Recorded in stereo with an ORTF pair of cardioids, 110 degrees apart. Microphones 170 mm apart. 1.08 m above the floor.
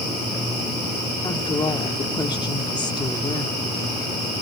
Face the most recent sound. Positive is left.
turn(degrees=25)